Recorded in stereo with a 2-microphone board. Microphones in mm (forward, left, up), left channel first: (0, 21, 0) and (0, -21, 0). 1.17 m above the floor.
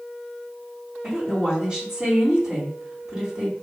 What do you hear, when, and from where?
1.0 s a woman speaking: 15° right (ahead or behind), 2.5 m